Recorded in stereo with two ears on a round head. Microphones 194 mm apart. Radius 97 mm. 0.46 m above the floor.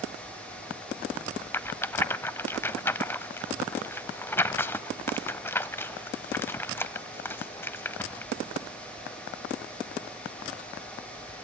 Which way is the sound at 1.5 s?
10° left (ahead or behind).